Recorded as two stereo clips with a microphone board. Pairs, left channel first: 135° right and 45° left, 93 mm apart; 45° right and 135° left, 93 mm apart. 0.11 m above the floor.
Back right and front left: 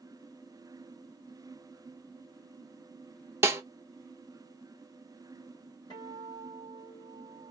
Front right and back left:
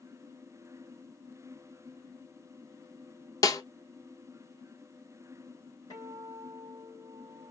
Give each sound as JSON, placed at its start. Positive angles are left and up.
{"t": 3.4, "sound": "a snare drum", "azimuth_deg": -10, "distance_m": 0.9}
{"t": 5.9, "sound": "a guitar", "azimuth_deg": -95, "distance_m": 3.5}